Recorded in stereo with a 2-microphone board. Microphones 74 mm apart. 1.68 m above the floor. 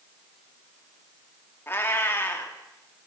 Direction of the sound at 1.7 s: 30° left (ahead or behind).